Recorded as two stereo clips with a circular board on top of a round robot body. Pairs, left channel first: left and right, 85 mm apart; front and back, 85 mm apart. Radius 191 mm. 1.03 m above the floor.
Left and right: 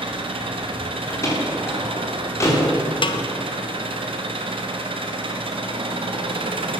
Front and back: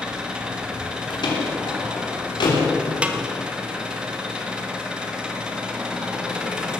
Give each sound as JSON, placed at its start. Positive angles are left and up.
{"t": 0.0, "sound": "an engine running", "azimuth_deg": -100, "distance_m": 1.6}
{"t": 1.1, "sound": "a door slam", "azimuth_deg": 35, "distance_m": 3.0}
{"t": 3.0, "sound": "a snare drum", "azimuth_deg": 105, "distance_m": 1.1}